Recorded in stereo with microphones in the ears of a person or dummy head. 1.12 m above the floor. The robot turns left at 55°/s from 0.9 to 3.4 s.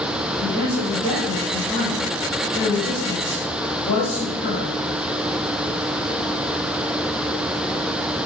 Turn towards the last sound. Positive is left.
turn(degrees=60)